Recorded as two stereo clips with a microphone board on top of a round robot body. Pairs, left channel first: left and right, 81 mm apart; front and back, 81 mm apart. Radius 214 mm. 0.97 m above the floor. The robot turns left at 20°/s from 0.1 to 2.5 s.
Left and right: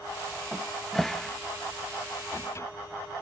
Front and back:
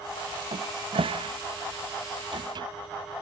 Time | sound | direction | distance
0.5 | a cupboard door | 170° right | ?